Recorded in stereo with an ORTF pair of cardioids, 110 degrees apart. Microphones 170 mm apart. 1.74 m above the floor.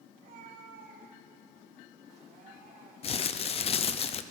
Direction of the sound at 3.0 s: 35° left.